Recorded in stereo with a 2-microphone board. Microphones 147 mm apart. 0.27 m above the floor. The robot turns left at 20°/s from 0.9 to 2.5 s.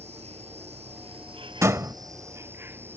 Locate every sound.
0.0 s an insect: 130° right; by 3.0 s 165° right
1.6 s a door slam: 20° right (ahead or behind)